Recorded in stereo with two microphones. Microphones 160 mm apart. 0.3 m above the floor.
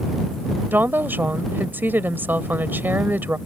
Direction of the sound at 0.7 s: 15° right (ahead or behind).